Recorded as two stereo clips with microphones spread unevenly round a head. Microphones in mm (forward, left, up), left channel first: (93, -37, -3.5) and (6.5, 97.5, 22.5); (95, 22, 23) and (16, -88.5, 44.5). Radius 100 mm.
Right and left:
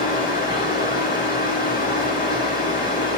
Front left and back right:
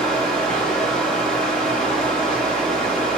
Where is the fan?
30° right, 3 m.